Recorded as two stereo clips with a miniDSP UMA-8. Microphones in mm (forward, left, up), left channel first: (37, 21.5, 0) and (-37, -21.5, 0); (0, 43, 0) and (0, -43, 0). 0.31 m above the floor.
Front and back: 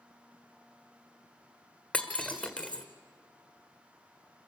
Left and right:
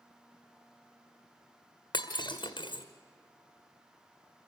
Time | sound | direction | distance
1.9 | breaking glass | 105° left | 1.7 m